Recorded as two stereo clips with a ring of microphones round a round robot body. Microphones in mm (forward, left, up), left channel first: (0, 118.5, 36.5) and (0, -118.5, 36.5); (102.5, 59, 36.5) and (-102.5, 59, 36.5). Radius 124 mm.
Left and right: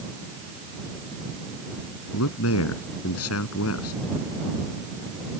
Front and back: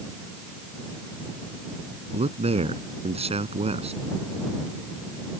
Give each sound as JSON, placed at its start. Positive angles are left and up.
{"t": 2.1, "sound": "a man speaking", "azimuth_deg": 120}